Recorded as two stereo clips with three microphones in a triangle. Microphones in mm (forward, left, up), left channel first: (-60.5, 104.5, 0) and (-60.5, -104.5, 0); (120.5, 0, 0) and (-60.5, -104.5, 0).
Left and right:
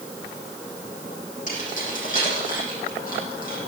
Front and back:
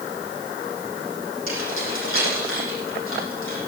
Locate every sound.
1.5 s keys jangling: 40° left, 9 m; by 3.6 s 45° left, 10 m